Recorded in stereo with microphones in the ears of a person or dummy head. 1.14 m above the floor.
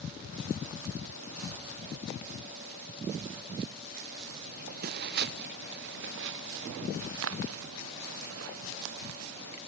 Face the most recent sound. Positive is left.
turn(degrees=-80)